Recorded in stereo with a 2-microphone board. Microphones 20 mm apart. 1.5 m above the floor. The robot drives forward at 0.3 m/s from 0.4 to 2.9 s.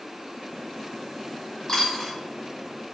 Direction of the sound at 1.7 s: 30° left (ahead or behind).